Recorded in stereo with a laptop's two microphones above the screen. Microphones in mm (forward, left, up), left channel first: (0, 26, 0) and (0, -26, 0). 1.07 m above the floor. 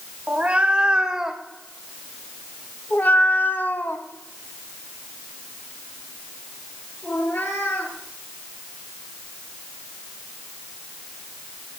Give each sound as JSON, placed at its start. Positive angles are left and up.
{"t": 0.3, "sound": "a cat meowing", "side_deg": -25, "distance_m": 1.4}